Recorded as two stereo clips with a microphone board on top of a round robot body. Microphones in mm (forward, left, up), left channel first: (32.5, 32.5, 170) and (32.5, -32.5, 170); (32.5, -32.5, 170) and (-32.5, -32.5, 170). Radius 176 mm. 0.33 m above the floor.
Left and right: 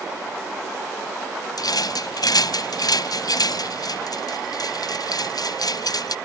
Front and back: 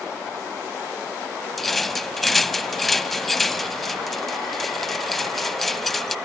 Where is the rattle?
90° left.